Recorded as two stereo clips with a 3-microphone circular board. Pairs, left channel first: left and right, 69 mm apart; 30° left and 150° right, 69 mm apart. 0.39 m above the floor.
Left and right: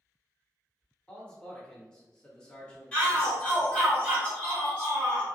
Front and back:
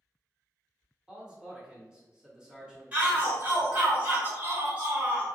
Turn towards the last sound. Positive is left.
turn(degrees=150)